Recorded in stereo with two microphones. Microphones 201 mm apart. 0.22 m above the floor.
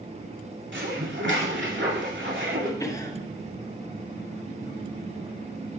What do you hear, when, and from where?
0.7 s dishes clattering: 70° right (ahead or behind), 2 m
2.8 s a cough: 15° left (ahead or behind), 1.1 m